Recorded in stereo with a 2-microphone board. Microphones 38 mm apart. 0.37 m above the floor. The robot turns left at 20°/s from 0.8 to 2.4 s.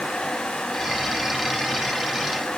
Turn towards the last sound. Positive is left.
No sound to turn to.